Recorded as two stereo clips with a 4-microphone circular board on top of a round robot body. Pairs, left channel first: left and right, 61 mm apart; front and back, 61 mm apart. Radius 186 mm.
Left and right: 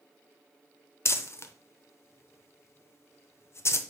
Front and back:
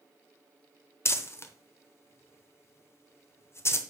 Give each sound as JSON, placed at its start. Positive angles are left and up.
{"t": 1.1, "sound": "crumpling", "azimuth_deg": 45, "distance_m": 0.9}